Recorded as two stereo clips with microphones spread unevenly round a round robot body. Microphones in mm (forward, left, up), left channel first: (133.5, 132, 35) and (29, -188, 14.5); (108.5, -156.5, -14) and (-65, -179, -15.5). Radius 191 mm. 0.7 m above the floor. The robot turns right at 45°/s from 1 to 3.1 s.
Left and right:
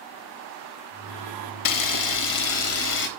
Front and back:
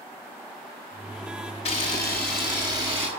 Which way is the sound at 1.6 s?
65° left.